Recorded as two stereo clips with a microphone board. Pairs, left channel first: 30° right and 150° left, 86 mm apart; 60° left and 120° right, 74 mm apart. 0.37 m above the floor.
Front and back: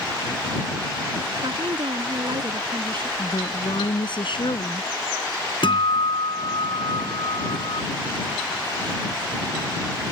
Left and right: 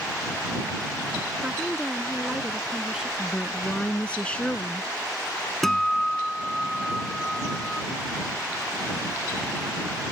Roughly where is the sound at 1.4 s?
Behind.